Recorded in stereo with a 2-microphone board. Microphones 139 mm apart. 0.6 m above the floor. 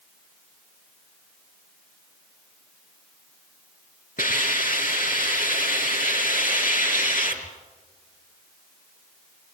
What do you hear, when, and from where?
4.2 s a hiss: 85° left, 5 m